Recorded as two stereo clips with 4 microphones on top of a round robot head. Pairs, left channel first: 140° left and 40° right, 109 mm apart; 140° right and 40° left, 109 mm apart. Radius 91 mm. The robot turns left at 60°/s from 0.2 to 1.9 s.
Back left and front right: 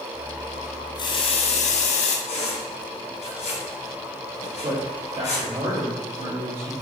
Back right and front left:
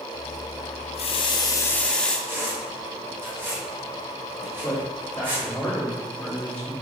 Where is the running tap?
165° right, 0.9 m; by 2.2 s 135° left, 0.9 m.